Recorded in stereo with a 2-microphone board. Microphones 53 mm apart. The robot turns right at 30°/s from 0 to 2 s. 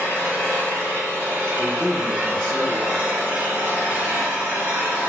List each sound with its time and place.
0.0 s an engine running: 110° right, 1.5 m; by 5.1 s 50° right, 1.5 m
1.6 s a man speaking: 15° left (ahead or behind), 1.1 m; by 3.1 s 20° left (ahead or behind), 1.1 m